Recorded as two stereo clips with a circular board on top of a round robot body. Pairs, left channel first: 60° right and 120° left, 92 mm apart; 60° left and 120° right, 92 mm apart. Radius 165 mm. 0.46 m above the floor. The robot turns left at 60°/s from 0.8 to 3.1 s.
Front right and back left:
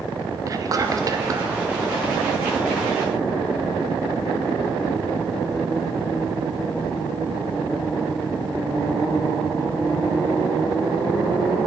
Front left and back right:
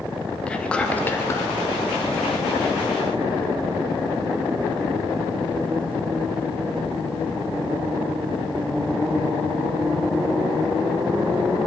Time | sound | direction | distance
0.5 | whispering | 130° left | 0.8 m